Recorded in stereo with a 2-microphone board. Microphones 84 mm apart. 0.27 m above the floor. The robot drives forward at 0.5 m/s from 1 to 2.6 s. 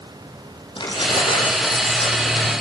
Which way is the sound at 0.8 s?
75° left (ahead or behind).